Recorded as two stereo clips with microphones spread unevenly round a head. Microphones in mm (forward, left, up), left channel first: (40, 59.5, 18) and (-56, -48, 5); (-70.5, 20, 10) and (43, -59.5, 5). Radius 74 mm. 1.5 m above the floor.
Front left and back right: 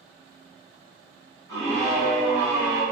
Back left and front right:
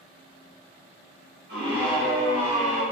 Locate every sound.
1.5 s a scream: 30° right, 1.5 m; by 2.8 s 65° right, 0.8 m